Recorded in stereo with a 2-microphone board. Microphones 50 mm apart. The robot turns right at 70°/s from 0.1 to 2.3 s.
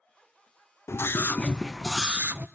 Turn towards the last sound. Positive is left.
turn(degrees=-145)